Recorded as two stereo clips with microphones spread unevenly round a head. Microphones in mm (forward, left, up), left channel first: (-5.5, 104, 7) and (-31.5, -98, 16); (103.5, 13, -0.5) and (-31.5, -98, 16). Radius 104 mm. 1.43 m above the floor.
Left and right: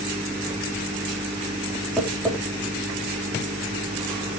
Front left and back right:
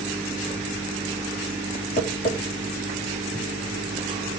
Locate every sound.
2.0 s tapping: straight ahead, 4 m